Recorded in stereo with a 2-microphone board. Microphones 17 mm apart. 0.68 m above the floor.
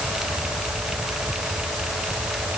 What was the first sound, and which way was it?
Only background noise.